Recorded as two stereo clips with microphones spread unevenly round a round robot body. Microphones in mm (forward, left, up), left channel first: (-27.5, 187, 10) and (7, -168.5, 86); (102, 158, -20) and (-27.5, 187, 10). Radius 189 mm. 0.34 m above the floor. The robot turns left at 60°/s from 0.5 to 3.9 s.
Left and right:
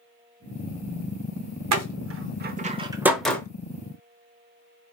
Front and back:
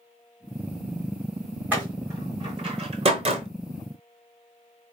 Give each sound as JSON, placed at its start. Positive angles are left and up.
{"t": 1.7, "sound": "a door slam", "azimuth_deg": -105, "distance_m": 0.7}